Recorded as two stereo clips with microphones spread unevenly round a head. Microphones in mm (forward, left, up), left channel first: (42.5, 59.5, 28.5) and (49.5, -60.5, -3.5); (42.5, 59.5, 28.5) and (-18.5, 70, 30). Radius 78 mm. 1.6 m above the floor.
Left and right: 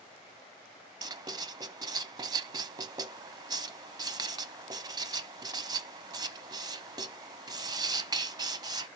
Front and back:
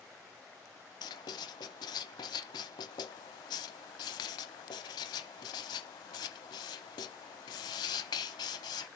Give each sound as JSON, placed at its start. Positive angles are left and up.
{"t": 1.0, "sound": "writing", "azimuth_deg": -30, "distance_m": 0.9}